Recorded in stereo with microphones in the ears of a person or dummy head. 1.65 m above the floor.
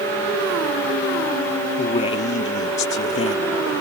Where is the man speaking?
40° left (ahead or behind).